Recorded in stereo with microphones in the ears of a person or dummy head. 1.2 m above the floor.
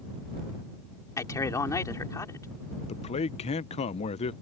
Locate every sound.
1.2 s a man speaking: 15° left (ahead or behind)
2.9 s a man speaking: 30° left (ahead or behind)